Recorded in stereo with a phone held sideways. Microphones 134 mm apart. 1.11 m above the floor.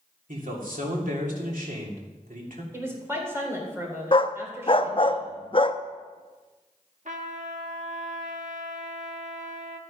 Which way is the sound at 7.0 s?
65° right (ahead or behind).